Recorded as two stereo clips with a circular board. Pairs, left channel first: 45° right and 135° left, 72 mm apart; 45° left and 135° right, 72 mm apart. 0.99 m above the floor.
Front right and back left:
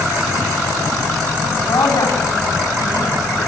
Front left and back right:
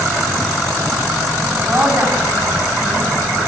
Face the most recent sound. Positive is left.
turn(degrees=-65)